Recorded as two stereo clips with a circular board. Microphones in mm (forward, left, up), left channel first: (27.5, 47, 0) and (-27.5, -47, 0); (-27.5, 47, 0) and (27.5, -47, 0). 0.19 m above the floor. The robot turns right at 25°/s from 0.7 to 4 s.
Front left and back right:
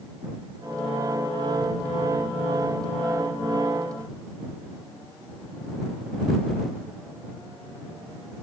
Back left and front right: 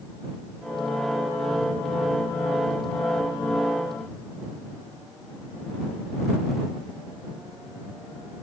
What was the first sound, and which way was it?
Only background noise.